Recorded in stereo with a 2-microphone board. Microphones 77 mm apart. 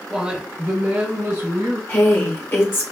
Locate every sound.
0.1 s a woman speaking: 10° right (ahead or behind), 0.9 m; by 1.8 s 55° right (ahead or behind), 2.0 m
1.9 s a woman speaking: 35° left (ahead or behind), 0.9 m